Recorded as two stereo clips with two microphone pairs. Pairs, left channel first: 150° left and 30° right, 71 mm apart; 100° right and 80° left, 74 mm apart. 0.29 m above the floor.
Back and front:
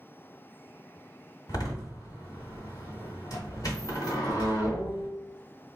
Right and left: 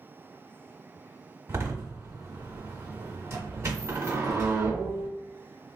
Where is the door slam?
125° left, 1.6 m.